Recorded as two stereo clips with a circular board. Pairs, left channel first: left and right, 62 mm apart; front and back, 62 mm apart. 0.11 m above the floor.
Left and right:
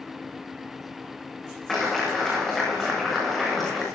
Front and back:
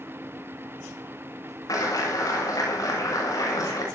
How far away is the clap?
About 8 m.